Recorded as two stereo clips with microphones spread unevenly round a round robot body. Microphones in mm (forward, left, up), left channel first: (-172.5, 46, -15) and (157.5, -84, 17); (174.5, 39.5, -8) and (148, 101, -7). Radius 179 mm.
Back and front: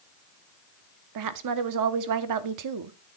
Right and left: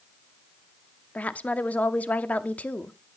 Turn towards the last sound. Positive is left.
turn(degrees=-5)